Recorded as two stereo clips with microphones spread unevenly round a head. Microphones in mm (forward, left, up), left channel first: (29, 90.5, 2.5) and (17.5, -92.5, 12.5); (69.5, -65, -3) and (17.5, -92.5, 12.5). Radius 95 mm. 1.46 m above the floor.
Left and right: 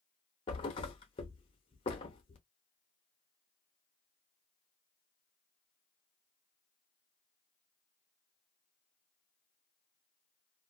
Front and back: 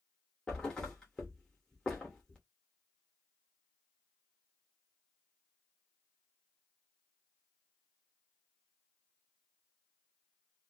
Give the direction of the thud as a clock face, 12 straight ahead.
8 o'clock.